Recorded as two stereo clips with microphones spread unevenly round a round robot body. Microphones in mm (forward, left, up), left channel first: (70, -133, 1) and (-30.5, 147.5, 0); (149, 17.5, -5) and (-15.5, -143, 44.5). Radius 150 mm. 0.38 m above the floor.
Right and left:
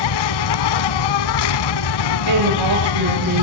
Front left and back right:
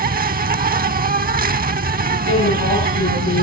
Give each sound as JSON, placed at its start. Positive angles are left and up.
{"t": 0.0, "sound": "an insect", "azimuth_deg": -80, "distance_m": 0.9}
{"t": 2.3, "sound": "a woman speaking", "azimuth_deg": 90, "distance_m": 8.0}